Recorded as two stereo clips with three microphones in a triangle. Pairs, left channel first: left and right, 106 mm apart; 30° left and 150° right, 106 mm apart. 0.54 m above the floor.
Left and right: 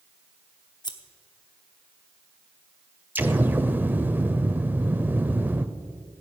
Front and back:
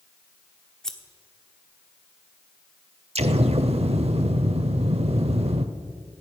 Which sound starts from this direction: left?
Scissors, at 0.8 s.